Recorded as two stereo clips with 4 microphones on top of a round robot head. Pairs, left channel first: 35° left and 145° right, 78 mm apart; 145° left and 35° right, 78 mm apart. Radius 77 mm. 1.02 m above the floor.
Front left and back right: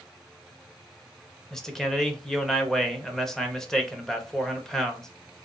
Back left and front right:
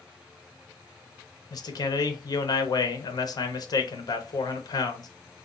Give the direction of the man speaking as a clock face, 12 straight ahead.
8 o'clock.